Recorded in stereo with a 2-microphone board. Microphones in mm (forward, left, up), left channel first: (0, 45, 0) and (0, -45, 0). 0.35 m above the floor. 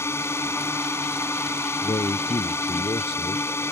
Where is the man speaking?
65° left (ahead or behind).